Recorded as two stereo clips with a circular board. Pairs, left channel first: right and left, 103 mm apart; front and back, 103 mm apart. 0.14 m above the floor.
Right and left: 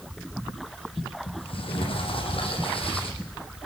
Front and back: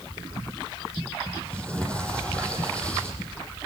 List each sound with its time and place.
1.3 s a sliding door: 80° right, 6 m